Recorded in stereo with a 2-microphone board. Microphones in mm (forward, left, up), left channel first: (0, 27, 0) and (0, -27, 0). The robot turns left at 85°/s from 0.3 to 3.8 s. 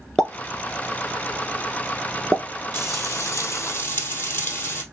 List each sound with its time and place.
0.2 s a pop: 10° left (ahead or behind), 0.7 m; by 2.5 s 10° right (ahead or behind), 0.7 m
2.7 s frying: 130° left, 1.8 m; by 4.8 s 40° left, 1.8 m